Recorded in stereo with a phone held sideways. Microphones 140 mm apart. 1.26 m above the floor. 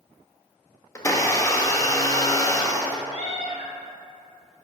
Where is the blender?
20° left (ahead or behind), 0.6 m.